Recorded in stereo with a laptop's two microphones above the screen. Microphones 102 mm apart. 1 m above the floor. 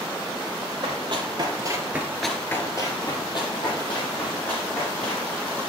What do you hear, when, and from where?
0.8 s running footsteps: 55° right (ahead or behind), 2.0 m; by 5.3 s 60° left (ahead or behind), 4.5 m